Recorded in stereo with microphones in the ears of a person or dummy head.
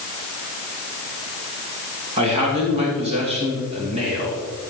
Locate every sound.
2.2 s a man speaking: 30° right (ahead or behind), 2.5 m